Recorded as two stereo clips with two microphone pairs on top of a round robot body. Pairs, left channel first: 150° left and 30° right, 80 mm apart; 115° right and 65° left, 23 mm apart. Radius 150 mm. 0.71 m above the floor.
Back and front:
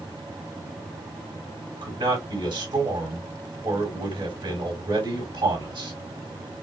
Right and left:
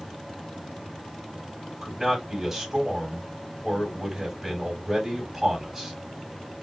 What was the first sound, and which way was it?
A man speaking, 15° right.